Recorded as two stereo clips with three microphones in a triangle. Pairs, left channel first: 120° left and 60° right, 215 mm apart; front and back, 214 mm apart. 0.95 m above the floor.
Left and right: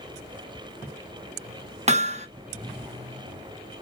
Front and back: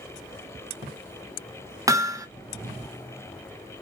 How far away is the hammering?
About 0.6 m.